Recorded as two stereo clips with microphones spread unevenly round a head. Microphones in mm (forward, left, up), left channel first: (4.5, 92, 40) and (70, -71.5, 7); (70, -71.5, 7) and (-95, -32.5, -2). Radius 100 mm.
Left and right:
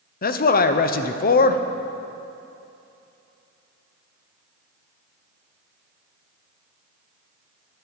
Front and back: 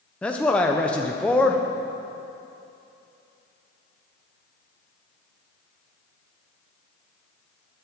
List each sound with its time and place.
0.2 s a man speaking: 70° left, 0.9 m